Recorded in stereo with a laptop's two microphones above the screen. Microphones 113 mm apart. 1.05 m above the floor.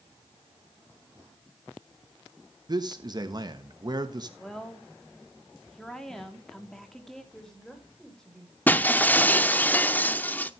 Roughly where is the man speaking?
Right.